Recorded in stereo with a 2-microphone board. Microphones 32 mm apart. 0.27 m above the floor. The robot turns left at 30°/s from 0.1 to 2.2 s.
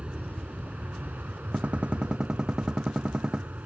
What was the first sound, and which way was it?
An aircraft, 40° right.